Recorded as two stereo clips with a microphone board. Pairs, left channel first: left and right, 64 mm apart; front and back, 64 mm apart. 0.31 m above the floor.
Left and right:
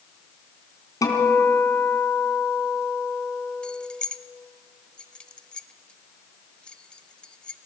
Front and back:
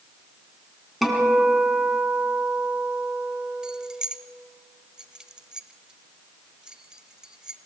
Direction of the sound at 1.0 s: 90° left.